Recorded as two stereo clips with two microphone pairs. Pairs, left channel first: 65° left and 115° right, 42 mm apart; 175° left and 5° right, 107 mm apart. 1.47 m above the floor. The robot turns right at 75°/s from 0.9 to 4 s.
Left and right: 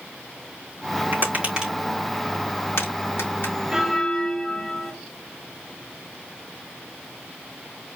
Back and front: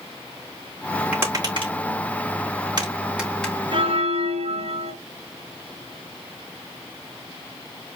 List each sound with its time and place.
1.1 s tapping: 80° right, 3.5 m; by 3.5 s 100° left, 3.5 m
3.7 s a bell: 35° right, 1.8 m; by 4.9 s 15° right, 1.8 m